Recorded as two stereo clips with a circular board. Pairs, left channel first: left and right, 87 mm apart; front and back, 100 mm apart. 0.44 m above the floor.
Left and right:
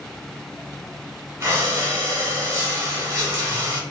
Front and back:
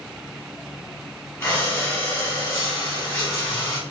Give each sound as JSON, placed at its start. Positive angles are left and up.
{"t": 1.4, "sound": "breathing", "azimuth_deg": -50, "distance_m": 1.4}